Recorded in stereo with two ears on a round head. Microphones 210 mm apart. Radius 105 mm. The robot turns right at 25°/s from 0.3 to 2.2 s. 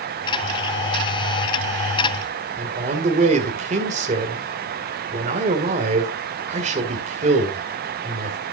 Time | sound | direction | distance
2.6 | a man speaking | 30° right (ahead or behind) | 1.9 m